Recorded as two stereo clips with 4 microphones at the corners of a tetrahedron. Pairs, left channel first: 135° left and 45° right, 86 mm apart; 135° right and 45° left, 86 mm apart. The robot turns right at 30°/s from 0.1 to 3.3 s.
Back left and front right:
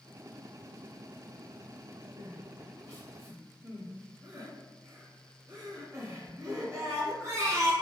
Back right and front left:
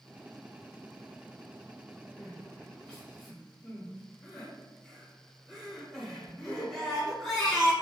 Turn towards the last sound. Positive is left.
turn(degrees=-50)